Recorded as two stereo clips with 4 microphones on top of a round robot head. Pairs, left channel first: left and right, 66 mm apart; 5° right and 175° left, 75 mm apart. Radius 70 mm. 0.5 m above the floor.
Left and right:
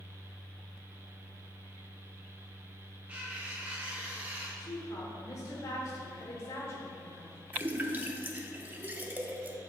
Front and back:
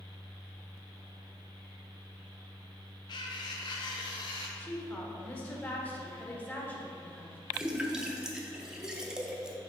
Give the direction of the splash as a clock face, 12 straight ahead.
4 o'clock.